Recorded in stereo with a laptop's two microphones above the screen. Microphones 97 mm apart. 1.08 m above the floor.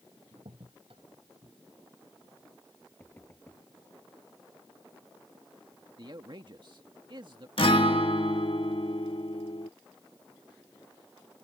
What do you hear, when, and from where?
0.3 s a crack: 65° right (ahead or behind)
3.0 s knocking: 20° left (ahead or behind)
6.0 s a man speaking: 50° right (ahead or behind)
7.6 s a guitar: 65° left (ahead or behind)